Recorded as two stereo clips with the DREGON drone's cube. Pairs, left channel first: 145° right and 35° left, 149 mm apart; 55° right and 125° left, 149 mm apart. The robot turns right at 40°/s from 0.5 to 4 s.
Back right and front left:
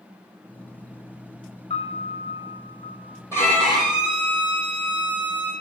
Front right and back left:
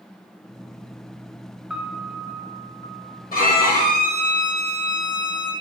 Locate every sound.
1.7 s a piano: 155° right, 0.5 m; by 3.2 s 95° right, 0.5 m
3.3 s a violin: 75° right, 1.1 m; by 5.5 s 45° right, 1.1 m